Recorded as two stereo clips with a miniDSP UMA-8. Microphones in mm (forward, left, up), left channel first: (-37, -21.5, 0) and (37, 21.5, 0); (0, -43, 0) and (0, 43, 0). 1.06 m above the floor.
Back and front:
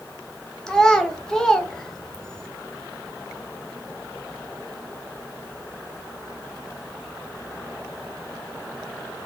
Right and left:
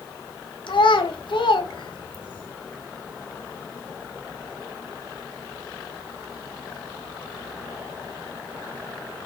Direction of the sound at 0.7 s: 70° right.